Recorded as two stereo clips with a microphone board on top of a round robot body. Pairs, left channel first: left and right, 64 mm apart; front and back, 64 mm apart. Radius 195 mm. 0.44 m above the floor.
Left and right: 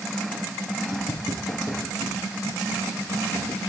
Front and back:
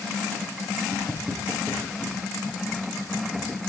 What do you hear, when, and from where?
0.9 s footsteps: 90° left, 9 m; by 3.6 s 105° left, 8 m